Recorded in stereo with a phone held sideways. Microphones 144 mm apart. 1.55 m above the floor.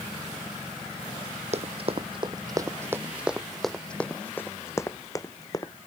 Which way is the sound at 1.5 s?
50° right (ahead or behind).